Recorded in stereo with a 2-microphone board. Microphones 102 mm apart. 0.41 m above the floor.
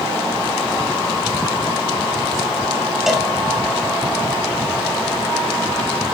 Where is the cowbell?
5° right (ahead or behind), 0.8 m.